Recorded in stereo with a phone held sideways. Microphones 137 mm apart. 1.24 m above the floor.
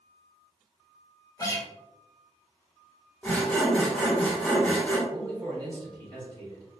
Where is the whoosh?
I don't hear a whoosh.